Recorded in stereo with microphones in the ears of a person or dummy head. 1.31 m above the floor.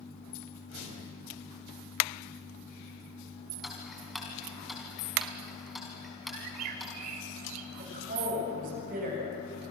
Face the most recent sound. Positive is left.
turn(degrees=-50)  # may be behind; listen again after turning